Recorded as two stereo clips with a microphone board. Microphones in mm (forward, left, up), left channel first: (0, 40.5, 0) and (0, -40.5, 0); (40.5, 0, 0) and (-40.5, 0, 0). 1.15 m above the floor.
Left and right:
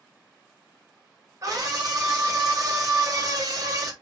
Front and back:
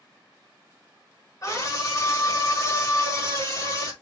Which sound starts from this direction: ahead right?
A scream, at 1.4 s.